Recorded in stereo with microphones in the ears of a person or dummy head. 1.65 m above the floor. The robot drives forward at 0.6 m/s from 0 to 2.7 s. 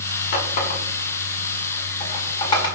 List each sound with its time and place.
0.3 s a running tap: 55° left (ahead or behind), 1.4 m; by 2.7 s 30° left (ahead or behind), 2 m